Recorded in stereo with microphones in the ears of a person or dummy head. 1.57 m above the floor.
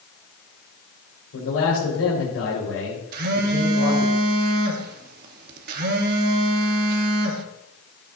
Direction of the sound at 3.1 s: 55° right (ahead or behind).